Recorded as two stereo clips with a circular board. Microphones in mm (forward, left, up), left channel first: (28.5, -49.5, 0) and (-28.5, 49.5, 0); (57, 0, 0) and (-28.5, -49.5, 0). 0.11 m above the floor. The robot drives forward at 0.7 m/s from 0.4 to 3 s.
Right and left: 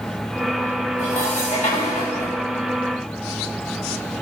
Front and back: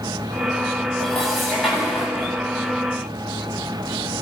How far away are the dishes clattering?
About 8.5 m.